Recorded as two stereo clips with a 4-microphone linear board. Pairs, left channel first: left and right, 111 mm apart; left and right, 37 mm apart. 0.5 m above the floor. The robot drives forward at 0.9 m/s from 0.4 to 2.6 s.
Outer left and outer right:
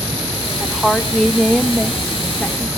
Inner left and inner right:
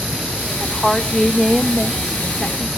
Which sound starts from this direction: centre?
A woman speaking, at 0.6 s.